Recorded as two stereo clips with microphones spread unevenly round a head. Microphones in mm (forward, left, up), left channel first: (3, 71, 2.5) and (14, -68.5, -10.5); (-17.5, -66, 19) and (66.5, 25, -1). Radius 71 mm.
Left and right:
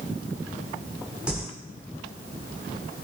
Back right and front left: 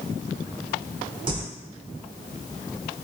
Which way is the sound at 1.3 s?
Straight ahead.